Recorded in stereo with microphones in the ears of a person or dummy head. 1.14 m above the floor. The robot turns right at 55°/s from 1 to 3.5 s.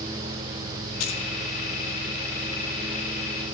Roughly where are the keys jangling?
Left.